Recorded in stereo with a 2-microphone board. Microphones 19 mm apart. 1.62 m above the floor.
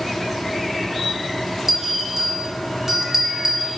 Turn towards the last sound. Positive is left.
turn(degrees=-30)  # may be behind; listen again after turning